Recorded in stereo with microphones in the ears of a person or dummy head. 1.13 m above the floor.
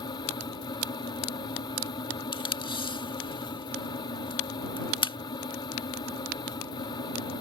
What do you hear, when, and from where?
0.0 s a fan: 25° left (ahead or behind)
2.3 s tape being pulled: 25° left (ahead or behind)